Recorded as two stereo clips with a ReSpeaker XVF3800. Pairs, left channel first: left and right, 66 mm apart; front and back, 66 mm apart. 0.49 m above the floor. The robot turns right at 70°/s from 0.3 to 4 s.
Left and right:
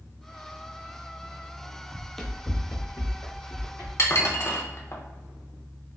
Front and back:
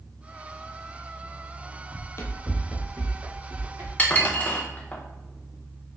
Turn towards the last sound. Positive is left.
turn(degrees=60)